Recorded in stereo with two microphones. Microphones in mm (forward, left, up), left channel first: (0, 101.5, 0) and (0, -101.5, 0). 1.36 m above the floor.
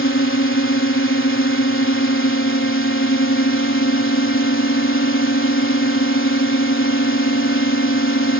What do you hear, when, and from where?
0.0 s a drone: 85° left